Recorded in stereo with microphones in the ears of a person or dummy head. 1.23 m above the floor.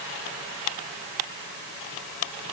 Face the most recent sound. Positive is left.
No sound to turn to.